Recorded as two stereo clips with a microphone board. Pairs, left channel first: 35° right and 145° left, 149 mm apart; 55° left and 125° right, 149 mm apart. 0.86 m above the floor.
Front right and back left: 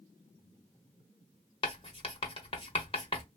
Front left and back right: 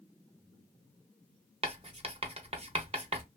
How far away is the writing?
About 0.6 m.